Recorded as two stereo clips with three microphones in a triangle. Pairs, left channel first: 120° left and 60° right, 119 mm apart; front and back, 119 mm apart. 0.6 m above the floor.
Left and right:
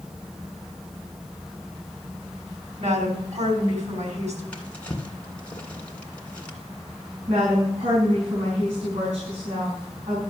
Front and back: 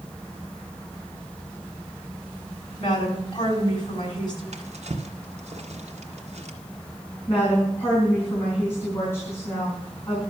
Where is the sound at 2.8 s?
50° right, 4 m.